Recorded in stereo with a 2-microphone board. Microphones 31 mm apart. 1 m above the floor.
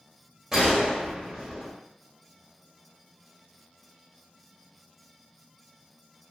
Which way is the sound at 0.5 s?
5° right (ahead or behind).